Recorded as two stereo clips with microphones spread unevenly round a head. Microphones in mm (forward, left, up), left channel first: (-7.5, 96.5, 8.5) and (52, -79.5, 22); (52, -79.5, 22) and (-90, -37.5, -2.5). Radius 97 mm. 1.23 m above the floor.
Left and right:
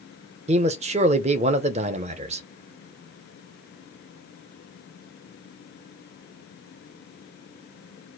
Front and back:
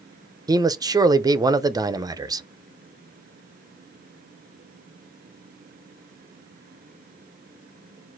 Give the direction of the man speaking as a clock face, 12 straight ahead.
4 o'clock.